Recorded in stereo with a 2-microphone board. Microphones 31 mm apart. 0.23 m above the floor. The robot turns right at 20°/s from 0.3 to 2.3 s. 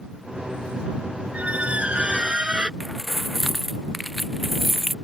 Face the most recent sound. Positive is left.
turn(degrees=0)  # may be behind; listen again after turning